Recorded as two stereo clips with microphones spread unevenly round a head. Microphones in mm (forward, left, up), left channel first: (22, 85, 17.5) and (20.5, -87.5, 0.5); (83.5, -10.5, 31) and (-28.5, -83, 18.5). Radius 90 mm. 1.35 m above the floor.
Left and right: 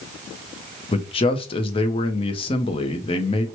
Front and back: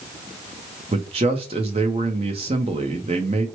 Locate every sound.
0.9 s a man speaking: 150° left, 0.5 m